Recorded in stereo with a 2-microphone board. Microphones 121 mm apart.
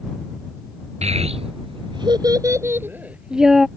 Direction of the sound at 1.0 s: 65° right (ahead or behind).